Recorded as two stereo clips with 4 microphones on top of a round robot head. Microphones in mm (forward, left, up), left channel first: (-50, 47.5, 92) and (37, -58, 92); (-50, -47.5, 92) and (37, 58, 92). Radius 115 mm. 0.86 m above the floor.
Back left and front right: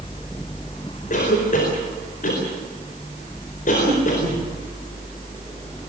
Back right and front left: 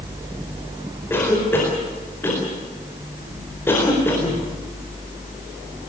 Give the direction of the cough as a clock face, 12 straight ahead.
7 o'clock.